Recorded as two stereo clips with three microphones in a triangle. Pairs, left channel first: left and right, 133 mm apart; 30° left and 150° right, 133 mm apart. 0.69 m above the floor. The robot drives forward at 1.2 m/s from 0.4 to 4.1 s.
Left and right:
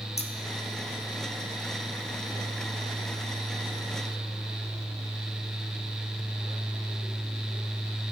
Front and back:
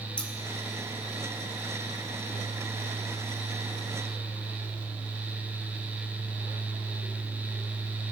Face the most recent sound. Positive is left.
turn(degrees=170)